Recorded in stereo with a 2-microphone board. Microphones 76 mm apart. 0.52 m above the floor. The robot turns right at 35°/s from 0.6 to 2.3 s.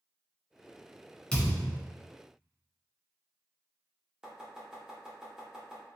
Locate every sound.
1.3 s a thud: 15° left (ahead or behind), 1.1 m; by 1.8 s 5° right (ahead or behind), 1.1 m
4.2 s chopping: 10° right (ahead or behind), 0.9 m